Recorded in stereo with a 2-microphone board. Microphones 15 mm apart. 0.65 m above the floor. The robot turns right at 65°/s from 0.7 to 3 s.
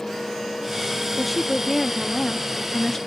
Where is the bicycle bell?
No bicycle bell in this recording.